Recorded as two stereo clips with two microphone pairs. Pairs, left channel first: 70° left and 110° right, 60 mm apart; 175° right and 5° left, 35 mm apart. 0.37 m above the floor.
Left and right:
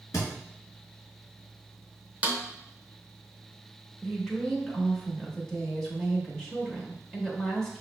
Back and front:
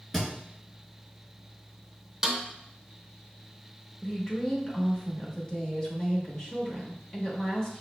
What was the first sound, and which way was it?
A thud, 100° left.